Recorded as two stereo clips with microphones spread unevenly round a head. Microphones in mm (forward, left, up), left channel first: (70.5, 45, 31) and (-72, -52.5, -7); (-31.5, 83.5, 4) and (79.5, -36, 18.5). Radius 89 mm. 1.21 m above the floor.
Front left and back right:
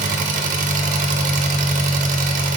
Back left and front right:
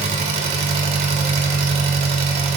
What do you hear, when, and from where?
0.0 s an engine running: 105° right, 0.8 m